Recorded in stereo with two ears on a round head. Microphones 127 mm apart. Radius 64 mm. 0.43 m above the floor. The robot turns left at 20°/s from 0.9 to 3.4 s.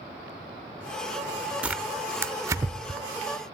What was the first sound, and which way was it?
Tearing paper, 10° right (ahead or behind).